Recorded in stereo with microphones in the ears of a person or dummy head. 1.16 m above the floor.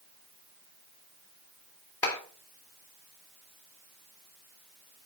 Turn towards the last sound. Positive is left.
turn(degrees=20)  # may be behind; listen again after turning